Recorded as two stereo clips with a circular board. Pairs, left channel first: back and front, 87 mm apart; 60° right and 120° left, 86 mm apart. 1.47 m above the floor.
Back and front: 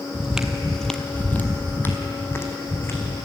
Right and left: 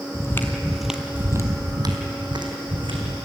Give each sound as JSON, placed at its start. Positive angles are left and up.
{"t": 0.1, "sound": "footsteps", "azimuth_deg": -65, "distance_m": 1.7}